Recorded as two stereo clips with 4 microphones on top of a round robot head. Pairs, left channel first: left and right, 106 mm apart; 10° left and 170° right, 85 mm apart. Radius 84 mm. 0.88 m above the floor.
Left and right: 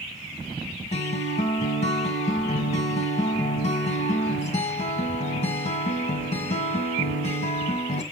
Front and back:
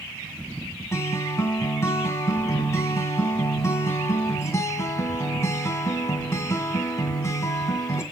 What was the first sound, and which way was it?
A guitar, 70° left.